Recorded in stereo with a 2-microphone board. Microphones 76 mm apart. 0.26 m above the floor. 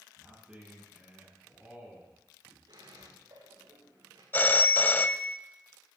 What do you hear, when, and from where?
0.2 s a man speaking: 15° right (ahead or behind), 9 m
2.7 s a squeak: 80° right, 8.5 m
4.3 s a phone ringing: 25° left (ahead or behind), 0.5 m